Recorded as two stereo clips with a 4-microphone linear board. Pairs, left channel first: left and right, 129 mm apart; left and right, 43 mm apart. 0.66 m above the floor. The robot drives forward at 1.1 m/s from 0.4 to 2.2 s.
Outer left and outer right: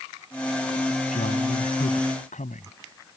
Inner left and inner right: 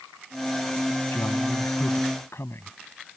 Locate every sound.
1.1 s a man speaking: 80° left; by 2.8 s 75° left (ahead or behind)